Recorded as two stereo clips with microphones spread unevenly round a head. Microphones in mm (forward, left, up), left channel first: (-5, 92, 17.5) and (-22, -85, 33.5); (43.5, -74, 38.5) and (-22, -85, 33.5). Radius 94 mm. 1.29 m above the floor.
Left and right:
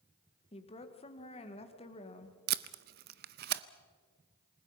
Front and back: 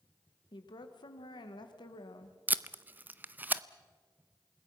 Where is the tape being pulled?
105° right, 0.7 m.